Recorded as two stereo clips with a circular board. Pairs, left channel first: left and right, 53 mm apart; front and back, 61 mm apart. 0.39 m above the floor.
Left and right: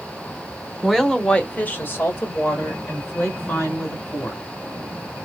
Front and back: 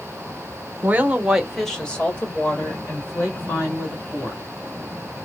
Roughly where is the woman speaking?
Behind.